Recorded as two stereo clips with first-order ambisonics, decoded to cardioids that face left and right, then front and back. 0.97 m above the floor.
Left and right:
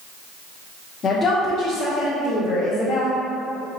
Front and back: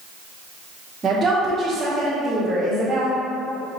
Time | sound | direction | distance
1.0 | a woman speaking | 135° left | 0.7 m